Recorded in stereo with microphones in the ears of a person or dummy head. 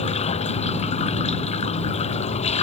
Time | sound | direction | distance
0.0 | running water | 35° left (ahead or behind) | ?